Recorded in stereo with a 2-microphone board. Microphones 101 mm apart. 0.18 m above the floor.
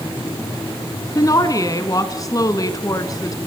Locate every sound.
1.1 s a woman speaking: 35° left (ahead or behind), 1.8 m